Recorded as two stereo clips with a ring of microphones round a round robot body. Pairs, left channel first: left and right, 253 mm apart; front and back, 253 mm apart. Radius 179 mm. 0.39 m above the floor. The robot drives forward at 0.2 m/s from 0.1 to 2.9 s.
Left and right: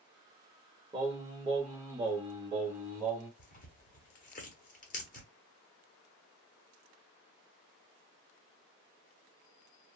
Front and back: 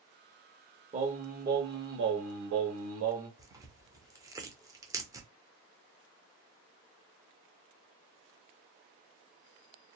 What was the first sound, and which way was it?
Singing, 145° right.